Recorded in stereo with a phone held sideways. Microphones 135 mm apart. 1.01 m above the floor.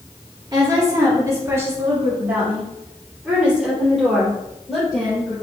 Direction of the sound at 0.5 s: 35° right (ahead or behind).